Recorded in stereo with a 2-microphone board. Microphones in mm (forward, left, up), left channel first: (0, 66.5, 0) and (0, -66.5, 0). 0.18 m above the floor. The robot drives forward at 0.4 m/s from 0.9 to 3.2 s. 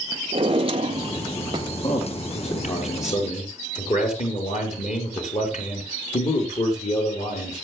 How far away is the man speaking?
About 4.5 m.